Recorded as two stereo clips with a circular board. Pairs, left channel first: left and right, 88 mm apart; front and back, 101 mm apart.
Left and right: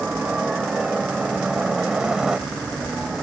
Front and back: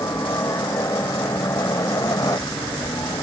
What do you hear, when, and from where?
0.0 s a helicopter: 20° right; by 3.2 s 10° right